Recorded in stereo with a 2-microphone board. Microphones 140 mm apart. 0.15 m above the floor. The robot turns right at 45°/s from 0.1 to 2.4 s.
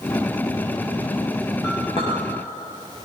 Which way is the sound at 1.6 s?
25° left (ahead or behind).